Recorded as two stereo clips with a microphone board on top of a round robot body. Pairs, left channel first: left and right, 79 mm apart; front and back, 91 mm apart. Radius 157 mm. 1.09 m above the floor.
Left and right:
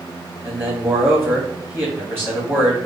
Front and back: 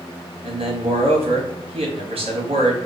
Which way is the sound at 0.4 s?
160° right.